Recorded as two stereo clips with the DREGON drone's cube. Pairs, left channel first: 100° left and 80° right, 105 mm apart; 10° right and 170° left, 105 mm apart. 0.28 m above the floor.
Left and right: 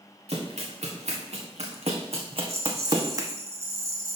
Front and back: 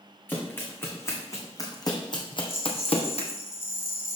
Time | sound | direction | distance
0.3 | running footsteps | 85° right | 2 m
2.4 | a rattle | 50° right | 1.8 m